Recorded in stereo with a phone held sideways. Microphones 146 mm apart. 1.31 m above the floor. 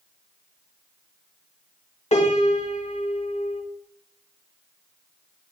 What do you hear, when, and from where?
2.1 s a piano: 50° left (ahead or behind), 1.5 m